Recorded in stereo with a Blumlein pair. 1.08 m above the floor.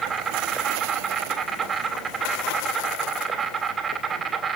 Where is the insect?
15° right, 3 m.